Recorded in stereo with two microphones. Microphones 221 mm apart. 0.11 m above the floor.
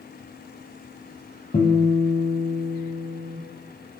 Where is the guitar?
25° left (ahead or behind), 0.9 m.